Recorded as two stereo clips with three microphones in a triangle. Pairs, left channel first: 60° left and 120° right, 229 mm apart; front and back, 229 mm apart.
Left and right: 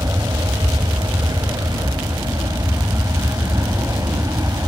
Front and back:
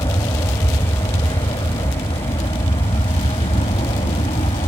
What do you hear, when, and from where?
0.0 s an aircraft: 50° right; by 4.7 s 45° right